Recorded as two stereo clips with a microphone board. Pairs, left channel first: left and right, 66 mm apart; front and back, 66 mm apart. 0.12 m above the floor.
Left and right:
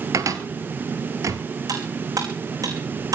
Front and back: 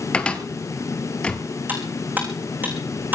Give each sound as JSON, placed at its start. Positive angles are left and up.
{"t": 0.1, "sound": "a cupboard door", "azimuth_deg": -70, "distance_m": 1.6}
{"t": 1.7, "sound": "cutlery clinking", "azimuth_deg": -120, "distance_m": 5.0}